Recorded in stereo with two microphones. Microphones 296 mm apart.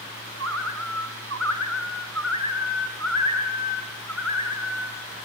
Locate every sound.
0.4 s a bird: 60° right (ahead or behind), 0.7 m